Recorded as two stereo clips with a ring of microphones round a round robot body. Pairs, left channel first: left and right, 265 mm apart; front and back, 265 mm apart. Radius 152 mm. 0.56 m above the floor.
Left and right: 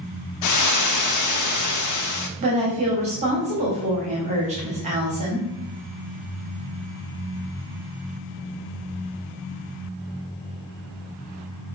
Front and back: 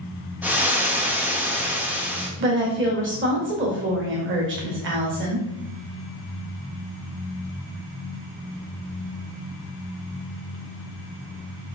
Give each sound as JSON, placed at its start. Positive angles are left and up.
{"t": 0.4, "sound": "frying", "azimuth_deg": 95, "distance_m": 0.6}
{"t": 2.4, "sound": "a woman speaking", "azimuth_deg": -150, "distance_m": 1.6}